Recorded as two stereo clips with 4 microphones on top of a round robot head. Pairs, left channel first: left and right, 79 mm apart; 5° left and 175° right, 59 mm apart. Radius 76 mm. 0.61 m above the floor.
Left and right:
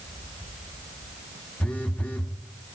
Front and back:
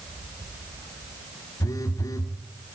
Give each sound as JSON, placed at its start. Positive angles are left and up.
{"t": 1.6, "sound": "a phone buzzing", "azimuth_deg": 15, "distance_m": 0.7}